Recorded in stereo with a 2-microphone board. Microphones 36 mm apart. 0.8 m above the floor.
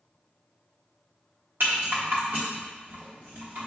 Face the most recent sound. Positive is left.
turn(degrees=-70)  # may be behind; listen again after turning